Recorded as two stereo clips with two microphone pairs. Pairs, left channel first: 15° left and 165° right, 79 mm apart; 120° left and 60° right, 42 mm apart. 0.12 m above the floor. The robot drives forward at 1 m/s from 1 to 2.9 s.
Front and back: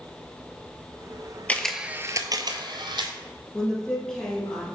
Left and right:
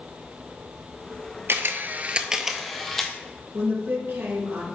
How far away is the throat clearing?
No throat clearing in this recording.